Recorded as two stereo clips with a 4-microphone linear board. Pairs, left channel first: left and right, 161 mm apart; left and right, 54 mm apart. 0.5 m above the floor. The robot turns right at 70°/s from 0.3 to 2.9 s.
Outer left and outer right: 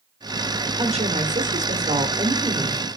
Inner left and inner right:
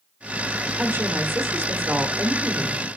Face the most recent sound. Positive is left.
turn(degrees=15)